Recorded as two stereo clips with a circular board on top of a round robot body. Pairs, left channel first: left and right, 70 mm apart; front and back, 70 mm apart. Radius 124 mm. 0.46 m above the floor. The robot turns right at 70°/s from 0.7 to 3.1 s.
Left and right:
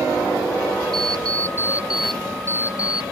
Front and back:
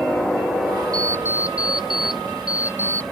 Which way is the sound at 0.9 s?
80° right.